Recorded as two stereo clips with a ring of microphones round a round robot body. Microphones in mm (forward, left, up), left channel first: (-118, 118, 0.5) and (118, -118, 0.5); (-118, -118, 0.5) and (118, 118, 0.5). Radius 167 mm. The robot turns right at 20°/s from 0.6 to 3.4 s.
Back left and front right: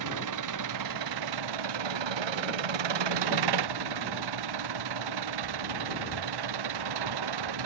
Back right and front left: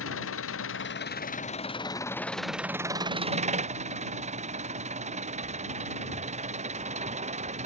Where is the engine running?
80° right; by 7.7 s 25° right.